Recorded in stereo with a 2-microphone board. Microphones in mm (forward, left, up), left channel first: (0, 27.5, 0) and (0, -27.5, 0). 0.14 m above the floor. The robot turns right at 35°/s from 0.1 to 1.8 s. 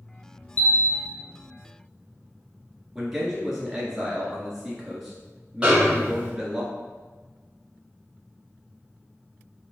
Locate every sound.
0.6 s a bell: 30° left (ahead or behind), 0.6 m; by 1.1 s 15° left (ahead or behind), 0.6 m
3.0 s a man speaking: 10° right (ahead or behind), 1.5 m
5.6 s a snare drum: 20° right (ahead or behind), 1.5 m